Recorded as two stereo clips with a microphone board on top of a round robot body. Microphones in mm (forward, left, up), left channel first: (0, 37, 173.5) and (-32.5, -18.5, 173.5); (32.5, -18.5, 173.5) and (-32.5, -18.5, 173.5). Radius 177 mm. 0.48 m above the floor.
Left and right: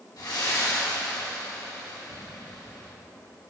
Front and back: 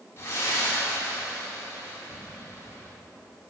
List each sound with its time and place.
0.2 s breathing: 50° left, 3 m